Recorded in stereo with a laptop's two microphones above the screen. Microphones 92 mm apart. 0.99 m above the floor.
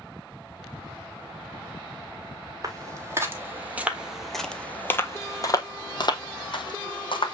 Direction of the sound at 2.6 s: 40° right (ahead or behind).